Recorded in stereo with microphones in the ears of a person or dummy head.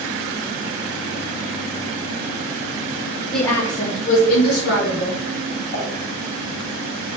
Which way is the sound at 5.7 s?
60° left (ahead or behind).